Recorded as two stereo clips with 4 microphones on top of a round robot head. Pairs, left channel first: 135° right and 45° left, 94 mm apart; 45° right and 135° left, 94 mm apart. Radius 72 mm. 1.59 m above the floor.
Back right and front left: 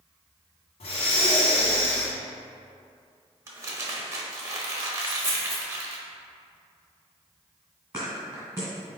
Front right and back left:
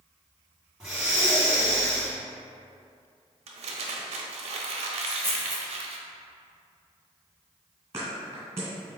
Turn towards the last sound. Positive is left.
turn(degrees=100)